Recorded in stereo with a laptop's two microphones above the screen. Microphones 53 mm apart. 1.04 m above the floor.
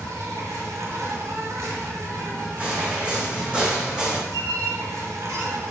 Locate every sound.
0.0 s an insect: 70° right (ahead or behind), 1.9 m
2.6 s footsteps: 25° right (ahead or behind), 4 m; by 4.2 s 15° right (ahead or behind), 3.5 m
4.3 s a squeak: 90° right, 2 m